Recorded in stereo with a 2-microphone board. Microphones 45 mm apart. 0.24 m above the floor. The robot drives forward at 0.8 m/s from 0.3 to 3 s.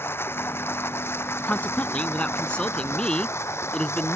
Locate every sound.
0.0 s running water: 60° left (ahead or behind); by 4.2 s 70° left (ahead or behind)
1.4 s a man speaking: 35° left (ahead or behind); by 4.2 s 25° left (ahead or behind)